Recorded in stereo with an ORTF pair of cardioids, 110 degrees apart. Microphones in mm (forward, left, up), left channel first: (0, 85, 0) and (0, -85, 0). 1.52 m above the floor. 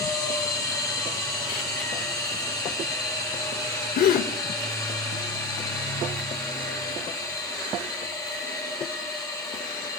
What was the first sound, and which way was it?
A machine running, 20° left.